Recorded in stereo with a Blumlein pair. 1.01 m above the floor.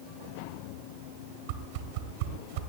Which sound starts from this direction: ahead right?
A whoosh, at 1.5 s.